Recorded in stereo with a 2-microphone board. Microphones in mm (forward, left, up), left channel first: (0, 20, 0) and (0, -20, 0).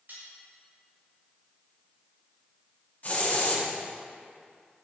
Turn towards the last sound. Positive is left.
turn(degrees=45)  # may be behind; listen again after turning